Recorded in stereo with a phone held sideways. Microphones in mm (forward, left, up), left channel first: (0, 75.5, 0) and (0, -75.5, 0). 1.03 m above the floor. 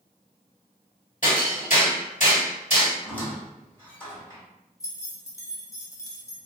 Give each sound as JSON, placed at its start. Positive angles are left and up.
{"t": 1.2, "sound": "hammering", "side_deg": 60, "distance_m": 1.7}
{"t": 3.0, "sound": "a squeak", "side_deg": 10, "distance_m": 1.5}
{"t": 4.8, "sound": "keys jangling", "side_deg": 20, "distance_m": 0.6}